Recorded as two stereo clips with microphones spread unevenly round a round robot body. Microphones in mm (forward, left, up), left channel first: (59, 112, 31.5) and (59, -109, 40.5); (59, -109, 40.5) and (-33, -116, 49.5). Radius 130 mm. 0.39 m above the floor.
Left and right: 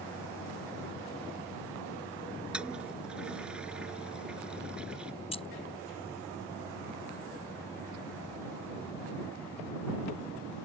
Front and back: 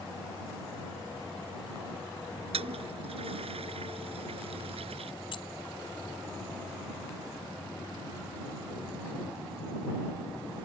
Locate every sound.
2.5 s a toilet flushing: 175° right
5.3 s keys jangling: 30° left